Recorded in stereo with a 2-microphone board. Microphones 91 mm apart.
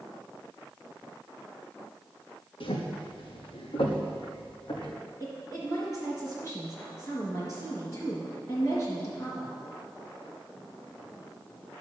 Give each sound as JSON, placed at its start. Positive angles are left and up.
{"t": 2.6, "sound": "footsteps", "side_deg": 75, "distance_m": 2.0}
{"t": 5.2, "sound": "a woman speaking", "side_deg": 35, "distance_m": 3.5}